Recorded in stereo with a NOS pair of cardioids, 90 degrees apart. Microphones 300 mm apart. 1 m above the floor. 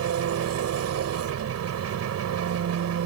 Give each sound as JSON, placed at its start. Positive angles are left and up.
{"t": 0.0, "sound": "an engine running", "azimuth_deg": -60}